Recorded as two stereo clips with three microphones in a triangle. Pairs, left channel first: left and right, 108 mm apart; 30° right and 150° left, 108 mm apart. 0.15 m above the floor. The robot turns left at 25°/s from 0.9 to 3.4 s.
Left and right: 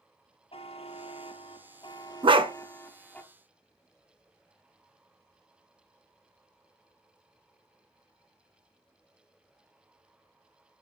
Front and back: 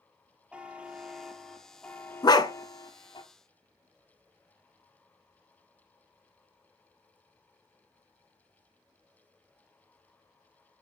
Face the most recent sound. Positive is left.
turn(degrees=-95)